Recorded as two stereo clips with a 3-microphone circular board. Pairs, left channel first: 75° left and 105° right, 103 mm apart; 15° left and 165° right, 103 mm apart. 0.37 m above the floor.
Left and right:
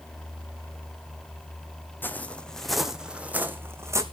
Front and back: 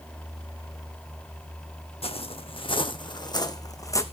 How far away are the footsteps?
About 1.2 m.